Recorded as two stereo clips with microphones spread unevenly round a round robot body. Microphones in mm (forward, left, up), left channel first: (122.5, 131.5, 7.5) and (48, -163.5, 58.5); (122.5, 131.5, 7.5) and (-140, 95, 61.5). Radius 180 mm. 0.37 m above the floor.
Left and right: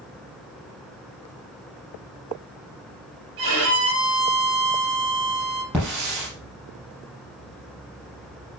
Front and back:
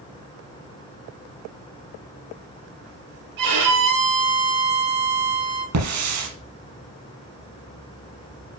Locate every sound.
3.4 s a violin: 160° right, 4.5 m
5.7 s a hiss: 165° left, 5.5 m